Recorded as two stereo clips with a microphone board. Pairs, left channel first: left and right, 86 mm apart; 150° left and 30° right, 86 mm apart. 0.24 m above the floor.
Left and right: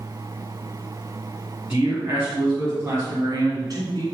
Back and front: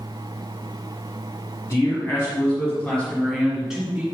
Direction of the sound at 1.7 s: 165° right.